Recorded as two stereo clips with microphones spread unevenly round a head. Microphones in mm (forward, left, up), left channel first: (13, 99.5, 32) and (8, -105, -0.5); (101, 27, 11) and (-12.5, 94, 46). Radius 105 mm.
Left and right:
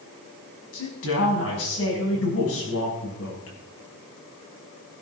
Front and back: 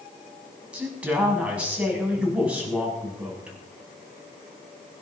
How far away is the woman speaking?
About 6.5 m.